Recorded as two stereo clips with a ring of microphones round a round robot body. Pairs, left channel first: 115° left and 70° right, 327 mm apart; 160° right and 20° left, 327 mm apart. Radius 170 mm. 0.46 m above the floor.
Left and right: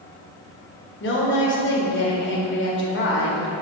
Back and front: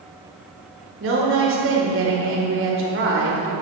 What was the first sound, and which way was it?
A woman speaking, 65° left.